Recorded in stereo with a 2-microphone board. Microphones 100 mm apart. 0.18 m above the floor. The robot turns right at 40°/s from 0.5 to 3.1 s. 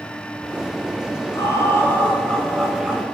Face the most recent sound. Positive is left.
turn(degrees=-170)